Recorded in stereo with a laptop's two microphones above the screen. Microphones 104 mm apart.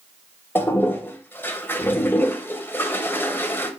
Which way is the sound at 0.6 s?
20° left (ahead or behind).